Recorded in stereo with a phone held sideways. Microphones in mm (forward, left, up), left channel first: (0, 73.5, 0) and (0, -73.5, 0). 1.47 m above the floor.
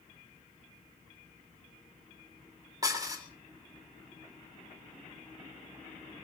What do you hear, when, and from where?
2.8 s dishes clattering: 25° right (ahead or behind), 3.5 m